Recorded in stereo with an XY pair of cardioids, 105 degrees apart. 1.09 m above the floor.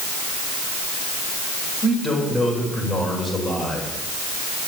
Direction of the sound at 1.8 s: 20° left.